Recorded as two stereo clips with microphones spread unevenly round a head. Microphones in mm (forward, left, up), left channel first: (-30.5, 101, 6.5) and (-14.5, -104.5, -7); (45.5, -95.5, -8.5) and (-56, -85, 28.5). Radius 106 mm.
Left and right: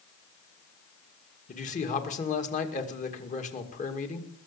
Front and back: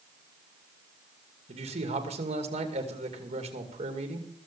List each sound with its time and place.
1.5 s a man speaking: 150° left, 2.5 m